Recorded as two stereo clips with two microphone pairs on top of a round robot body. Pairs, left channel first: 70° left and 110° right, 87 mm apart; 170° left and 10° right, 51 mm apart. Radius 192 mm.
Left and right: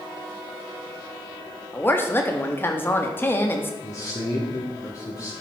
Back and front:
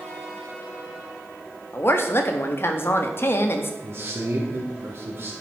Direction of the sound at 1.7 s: 135° left.